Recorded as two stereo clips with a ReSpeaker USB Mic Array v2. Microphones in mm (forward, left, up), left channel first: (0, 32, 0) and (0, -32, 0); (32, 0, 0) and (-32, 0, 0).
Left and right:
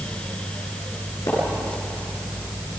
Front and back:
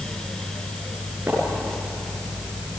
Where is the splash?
115° left, 8.5 m.